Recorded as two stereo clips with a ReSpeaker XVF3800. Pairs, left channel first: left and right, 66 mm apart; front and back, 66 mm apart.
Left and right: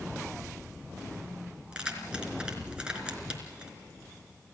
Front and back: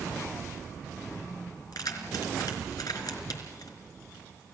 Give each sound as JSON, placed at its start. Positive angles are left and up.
{"t": 1.7, "sound": "keys jangling", "azimuth_deg": -15, "distance_m": 3.5}